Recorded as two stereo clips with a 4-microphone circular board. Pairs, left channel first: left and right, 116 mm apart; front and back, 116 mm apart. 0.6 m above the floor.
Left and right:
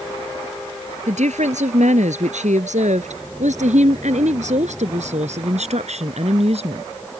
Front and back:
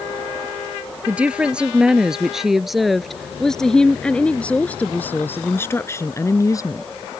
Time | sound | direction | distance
1.1 | a woman speaking | 100° right | ?